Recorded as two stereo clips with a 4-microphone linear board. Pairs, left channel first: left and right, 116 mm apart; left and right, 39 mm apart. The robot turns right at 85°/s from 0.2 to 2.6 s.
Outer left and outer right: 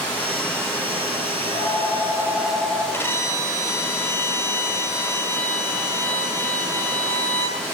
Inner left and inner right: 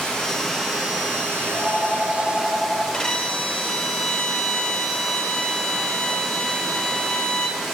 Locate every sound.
0.0 s running water: 165° left, 3.5 m; by 7.8 s 10° left, 3.5 m
1.4 s a phone ringing: 95° left, 3 m; by 2.8 s 160° right, 3 m
2.9 s a violin: 20° left (ahead or behind), 0.9 m